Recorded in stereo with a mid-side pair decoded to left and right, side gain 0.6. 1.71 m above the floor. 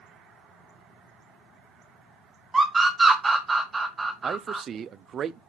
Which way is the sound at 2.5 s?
20° right.